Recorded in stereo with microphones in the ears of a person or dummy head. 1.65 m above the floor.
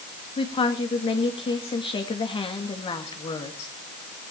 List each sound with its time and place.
0.4 s a woman speaking: 25° left (ahead or behind), 2 m